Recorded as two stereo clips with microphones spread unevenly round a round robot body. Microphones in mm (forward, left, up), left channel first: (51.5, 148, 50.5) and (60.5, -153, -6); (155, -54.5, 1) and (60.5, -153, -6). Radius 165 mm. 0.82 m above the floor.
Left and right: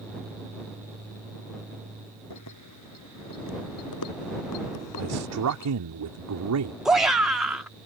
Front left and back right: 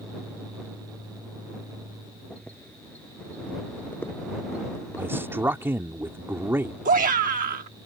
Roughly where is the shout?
Behind.